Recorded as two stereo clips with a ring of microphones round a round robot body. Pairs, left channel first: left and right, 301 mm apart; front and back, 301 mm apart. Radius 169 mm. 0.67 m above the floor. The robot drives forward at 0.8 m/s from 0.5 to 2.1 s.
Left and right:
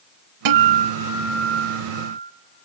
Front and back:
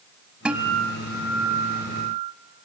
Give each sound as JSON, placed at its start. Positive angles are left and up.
{"t": 0.5, "sound": "a guitar", "azimuth_deg": -95, "distance_m": 0.7}